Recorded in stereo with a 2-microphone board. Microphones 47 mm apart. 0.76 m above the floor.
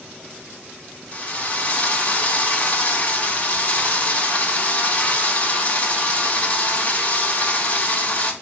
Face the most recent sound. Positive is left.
turn(degrees=35)  # may be behind; listen again after turning